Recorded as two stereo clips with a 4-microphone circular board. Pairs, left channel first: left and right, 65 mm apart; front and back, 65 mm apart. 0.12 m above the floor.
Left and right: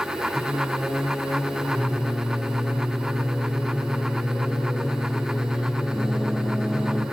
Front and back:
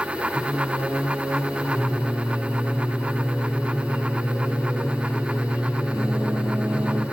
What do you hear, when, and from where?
0.3 s singing: 155° left, 3.5 m